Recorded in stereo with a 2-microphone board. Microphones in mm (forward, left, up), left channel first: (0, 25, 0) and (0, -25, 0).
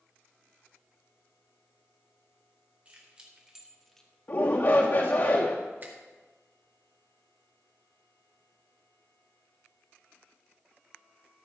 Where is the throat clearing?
I don't hear throat clearing.